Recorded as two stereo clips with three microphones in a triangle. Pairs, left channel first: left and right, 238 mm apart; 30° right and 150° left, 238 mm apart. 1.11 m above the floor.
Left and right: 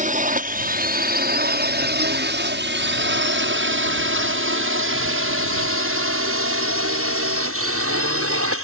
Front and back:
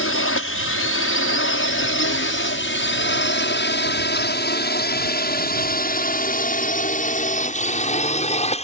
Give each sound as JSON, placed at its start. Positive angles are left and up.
{"t": 0.0, "sound": "a drone", "azimuth_deg": -35}